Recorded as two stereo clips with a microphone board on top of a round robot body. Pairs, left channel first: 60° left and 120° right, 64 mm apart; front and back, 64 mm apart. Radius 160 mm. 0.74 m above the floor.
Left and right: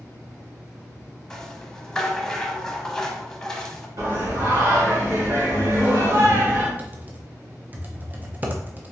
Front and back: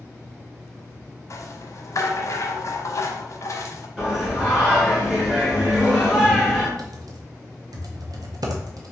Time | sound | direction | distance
1.3 | a rattle | 20° right | 1.0 m
4.0 | singing | 105° right | 2.5 m
6.8 | typing on a keyboard | straight behind | 0.6 m